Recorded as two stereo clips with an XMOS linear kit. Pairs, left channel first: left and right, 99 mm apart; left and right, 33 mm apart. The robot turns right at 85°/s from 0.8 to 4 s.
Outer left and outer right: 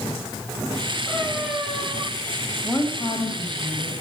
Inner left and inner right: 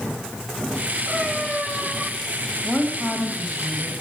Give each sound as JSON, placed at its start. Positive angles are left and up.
{"t": 1.1, "sound": "a cat meowing", "azimuth_deg": 15, "distance_m": 8.0}
{"t": 2.6, "sound": "a woman speaking", "azimuth_deg": 20, "distance_m": 4.0}